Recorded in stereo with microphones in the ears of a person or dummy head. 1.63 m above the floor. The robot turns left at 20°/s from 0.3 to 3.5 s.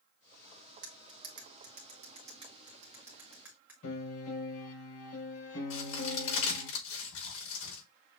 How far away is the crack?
About 4.5 m.